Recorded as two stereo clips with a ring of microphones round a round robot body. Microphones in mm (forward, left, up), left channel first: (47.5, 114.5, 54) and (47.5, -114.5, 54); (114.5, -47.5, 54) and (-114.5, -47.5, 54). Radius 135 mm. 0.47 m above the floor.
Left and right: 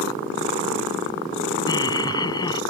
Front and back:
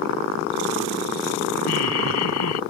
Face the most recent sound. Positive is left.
turn(degrees=20)